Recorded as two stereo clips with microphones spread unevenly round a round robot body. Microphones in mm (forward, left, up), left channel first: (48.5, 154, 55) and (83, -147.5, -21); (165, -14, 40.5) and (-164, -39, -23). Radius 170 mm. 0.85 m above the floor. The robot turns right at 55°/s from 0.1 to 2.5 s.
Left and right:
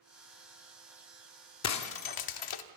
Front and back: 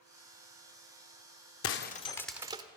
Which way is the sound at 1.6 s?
55° left.